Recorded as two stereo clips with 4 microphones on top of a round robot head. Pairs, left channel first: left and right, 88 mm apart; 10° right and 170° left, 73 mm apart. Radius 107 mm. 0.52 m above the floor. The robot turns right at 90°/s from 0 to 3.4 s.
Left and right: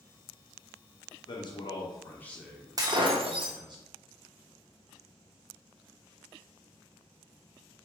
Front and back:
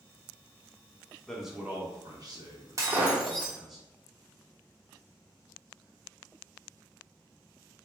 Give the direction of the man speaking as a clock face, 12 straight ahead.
10 o'clock.